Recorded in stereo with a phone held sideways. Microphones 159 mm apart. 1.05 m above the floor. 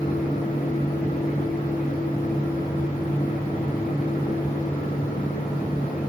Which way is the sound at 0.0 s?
60° left (ahead or behind).